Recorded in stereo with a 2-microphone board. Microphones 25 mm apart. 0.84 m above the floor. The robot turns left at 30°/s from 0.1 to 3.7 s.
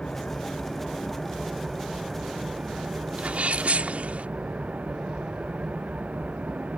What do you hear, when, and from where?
0.0 s an engine running: 35° left; by 6.8 s 70° right
3.2 s a sneeze: 65° right (ahead or behind); by 4.3 s 75° right (ahead or behind)